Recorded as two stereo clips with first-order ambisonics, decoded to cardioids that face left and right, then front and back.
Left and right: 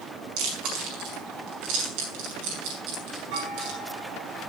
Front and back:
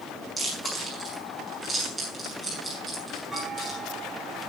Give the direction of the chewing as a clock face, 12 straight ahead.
3 o'clock.